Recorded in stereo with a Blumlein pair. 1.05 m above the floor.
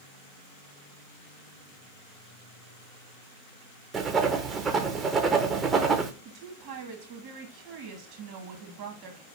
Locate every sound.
3.9 s writing: 20° right, 0.7 m
6.2 s a woman speaking: 45° right, 1.5 m